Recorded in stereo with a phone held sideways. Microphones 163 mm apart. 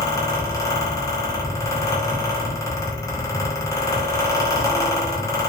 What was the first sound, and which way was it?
A fan, 20° left (ahead or behind).